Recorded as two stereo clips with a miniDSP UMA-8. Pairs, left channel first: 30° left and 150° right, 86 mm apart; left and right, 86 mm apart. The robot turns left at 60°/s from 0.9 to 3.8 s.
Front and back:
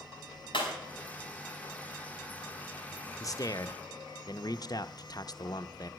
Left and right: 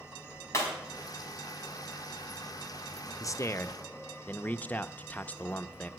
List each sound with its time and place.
0.5 s breaking glass: 35° left, 4 m
3.2 s a man speaking: 60° left, 0.6 m; by 5.9 s 25° left, 0.6 m